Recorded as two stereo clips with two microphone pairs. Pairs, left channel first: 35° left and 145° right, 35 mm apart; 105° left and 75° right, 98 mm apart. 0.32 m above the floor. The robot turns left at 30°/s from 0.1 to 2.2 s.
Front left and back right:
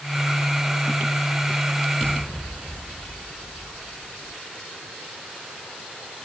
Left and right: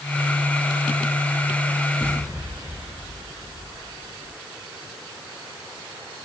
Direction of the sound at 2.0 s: 10° right.